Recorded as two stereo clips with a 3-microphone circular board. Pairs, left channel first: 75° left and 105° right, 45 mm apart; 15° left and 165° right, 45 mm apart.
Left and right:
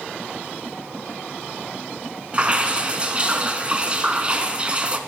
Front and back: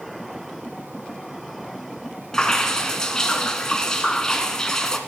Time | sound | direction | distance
2.3 | dripping | 55° right | 1.2 m